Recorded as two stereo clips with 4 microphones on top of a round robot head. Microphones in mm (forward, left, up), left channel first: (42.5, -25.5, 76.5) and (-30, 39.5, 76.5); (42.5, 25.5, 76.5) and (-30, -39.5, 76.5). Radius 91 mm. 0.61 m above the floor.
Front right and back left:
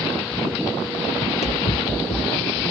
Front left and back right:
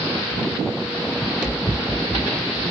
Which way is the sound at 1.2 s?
60° right.